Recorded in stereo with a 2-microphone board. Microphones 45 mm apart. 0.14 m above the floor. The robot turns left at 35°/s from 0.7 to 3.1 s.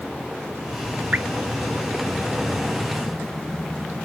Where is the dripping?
35° right (ahead or behind), 0.6 m; by 1.3 s 40° right (ahead or behind), 0.6 m.